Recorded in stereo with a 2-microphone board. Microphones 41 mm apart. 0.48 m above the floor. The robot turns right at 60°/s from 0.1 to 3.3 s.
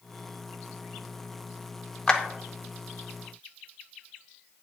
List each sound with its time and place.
2.1 s a clap: 15° left (ahead or behind), 0.6 m; by 2.2 s 10° left (ahead or behind), 0.6 m